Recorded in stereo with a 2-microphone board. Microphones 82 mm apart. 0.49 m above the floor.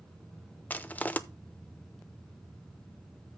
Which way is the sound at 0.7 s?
20° left (ahead or behind).